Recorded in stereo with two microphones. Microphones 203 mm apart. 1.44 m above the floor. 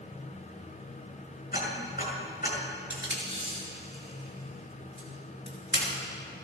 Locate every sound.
1.5 s ticking: 50° left (ahead or behind), 6 m
2.9 s tape being pulled: 60° left (ahead or behind), 6 m